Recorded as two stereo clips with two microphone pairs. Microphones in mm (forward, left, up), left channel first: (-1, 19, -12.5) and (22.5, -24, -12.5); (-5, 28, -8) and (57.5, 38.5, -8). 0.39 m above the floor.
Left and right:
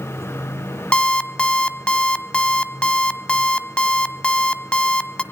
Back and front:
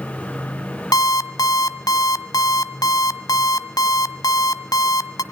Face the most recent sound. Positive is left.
turn(degrees=-170)